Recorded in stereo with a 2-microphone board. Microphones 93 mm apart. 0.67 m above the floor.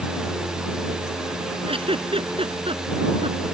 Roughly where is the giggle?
Right.